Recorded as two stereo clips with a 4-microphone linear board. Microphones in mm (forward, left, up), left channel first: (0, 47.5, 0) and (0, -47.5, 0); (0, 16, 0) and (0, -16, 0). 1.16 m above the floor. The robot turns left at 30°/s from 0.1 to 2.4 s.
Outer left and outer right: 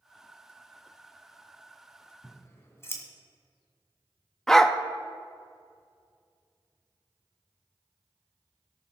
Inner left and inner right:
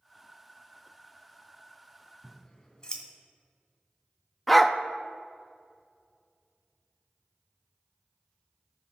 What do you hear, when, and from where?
2.2 s scissors: 20° left (ahead or behind), 2 m; by 3.0 s 25° left (ahead or behind), 2 m
4.5 s a dog barking: 5° left (ahead or behind), 0.5 m